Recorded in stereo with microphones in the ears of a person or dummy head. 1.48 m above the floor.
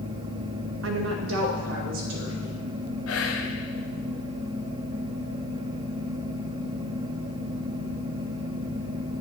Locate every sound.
0.8 s a woman speaking: 70° right (ahead or behind), 0.6 m; by 2.5 s 85° right, 2.5 m
3.1 s whispering: 85° left, 1.0 m